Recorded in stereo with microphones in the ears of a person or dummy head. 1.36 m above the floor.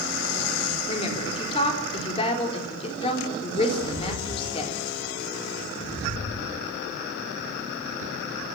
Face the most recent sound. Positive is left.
turn(degrees=45)  # may be behind; listen again after turning